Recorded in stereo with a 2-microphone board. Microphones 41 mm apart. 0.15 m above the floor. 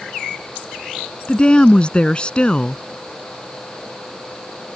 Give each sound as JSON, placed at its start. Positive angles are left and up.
{"t": 1.3, "sound": "a woman speaking", "side_deg": 25}